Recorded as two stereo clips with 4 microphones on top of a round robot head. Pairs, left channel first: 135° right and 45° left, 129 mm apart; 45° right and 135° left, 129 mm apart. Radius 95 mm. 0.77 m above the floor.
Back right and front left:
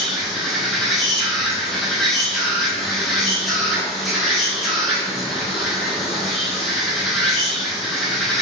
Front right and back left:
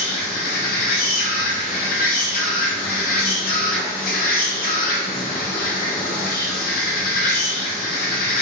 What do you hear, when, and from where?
0.0 s an insect: 45° right, 0.8 m